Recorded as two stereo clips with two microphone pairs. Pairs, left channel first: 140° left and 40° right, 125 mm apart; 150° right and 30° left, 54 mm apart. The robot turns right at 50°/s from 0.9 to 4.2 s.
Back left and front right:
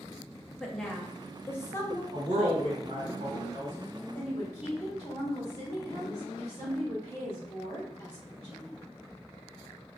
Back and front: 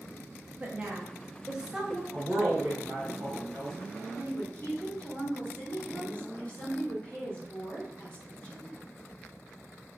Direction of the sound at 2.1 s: 50° right.